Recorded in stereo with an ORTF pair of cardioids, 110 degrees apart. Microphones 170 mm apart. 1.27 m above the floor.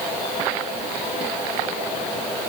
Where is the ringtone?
I don't hear a ringtone.